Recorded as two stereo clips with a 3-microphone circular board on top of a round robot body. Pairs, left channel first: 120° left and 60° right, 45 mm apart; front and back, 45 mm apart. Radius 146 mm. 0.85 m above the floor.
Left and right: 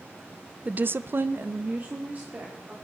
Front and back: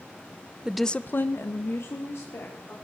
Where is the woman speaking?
115° right, 0.6 m; by 2.7 s 5° right, 3 m.